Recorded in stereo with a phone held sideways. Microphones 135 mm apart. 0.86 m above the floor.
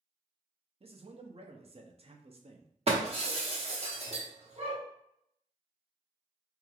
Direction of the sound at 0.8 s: 45° right (ahead or behind).